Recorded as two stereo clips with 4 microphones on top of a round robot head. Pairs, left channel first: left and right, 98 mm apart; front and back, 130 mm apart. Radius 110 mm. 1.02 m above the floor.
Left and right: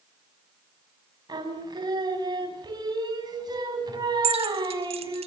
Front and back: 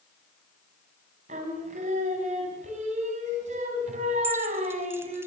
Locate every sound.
1.3 s singing: 135° right, 5 m
4.2 s keys jangling: 105° right, 1.1 m